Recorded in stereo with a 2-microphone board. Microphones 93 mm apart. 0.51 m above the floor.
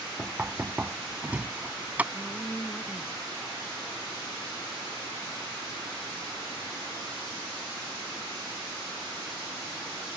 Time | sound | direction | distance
0.2 | knocking | 15° right (ahead or behind) | ?
2.1 | a woman speaking | 10° left (ahead or behind) | ?